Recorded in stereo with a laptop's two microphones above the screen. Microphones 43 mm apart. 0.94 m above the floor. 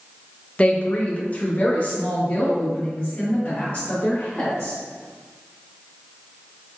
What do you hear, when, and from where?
0.6 s a woman speaking: 25° left (ahead or behind), 0.6 m; by 4.8 s 35° left (ahead or behind), 2.5 m